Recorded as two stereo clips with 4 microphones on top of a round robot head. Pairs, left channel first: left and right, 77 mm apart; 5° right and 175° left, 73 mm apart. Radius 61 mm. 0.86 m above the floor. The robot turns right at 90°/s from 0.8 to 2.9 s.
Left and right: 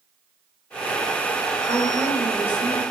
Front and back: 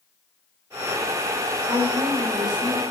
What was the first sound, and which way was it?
A woman speaking, 130° left.